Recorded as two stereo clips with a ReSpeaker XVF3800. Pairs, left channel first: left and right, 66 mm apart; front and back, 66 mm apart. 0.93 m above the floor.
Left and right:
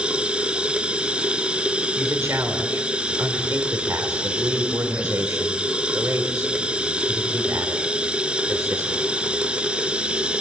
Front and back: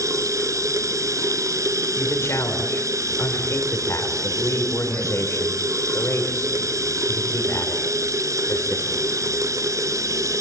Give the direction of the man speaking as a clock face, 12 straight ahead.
2 o'clock.